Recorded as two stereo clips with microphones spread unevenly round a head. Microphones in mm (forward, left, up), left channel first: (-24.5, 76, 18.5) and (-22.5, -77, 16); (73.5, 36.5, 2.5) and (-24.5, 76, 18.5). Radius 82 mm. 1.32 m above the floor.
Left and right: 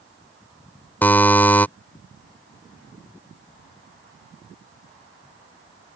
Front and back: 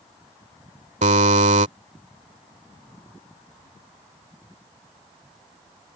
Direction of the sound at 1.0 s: 170° left.